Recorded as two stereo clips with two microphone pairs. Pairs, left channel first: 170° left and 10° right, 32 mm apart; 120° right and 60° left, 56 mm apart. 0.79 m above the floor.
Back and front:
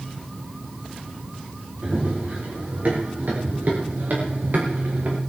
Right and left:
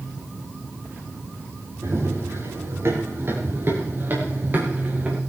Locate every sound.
1.8 s running footsteps: 25° left, 9.5 m; by 5.2 s straight ahead, 6.5 m